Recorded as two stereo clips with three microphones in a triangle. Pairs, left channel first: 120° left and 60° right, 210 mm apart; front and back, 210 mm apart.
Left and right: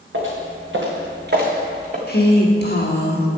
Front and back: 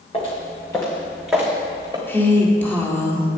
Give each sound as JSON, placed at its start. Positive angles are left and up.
{"t": 0.1, "sound": "footsteps", "azimuth_deg": -60, "distance_m": 3.0}
{"t": 2.1, "sound": "a woman speaking", "azimuth_deg": 80, "distance_m": 1.7}